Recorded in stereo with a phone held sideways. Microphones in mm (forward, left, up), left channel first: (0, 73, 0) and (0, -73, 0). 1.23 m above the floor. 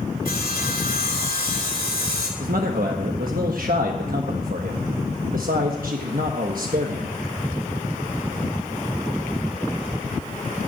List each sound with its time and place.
0.2 s sawing: 85° left, 3 m
2.4 s a man speaking: 75° right (ahead or behind), 1.2 m